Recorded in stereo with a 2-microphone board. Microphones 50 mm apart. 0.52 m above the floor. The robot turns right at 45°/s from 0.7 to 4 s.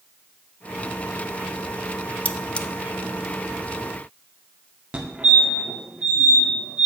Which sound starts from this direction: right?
A fire alarm, at 4.9 s.